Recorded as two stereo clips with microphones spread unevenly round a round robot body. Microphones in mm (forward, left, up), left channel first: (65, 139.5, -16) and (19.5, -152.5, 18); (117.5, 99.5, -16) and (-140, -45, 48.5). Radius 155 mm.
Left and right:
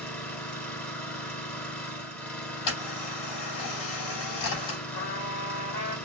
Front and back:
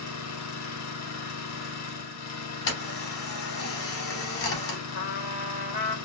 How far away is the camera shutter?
About 3.5 m.